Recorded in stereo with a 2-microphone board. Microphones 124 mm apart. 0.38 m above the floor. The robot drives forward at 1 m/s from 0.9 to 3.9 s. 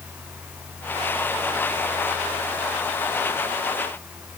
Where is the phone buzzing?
No phone buzzing in this recording.